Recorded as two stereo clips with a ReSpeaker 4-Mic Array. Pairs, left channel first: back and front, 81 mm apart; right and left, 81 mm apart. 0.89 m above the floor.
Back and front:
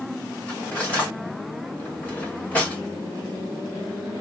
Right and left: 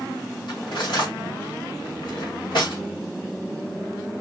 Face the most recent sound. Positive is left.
turn(degrees=-105)